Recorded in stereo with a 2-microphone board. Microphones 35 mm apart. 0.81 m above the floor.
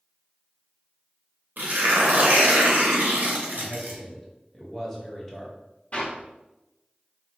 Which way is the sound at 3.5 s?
15° left (ahead or behind).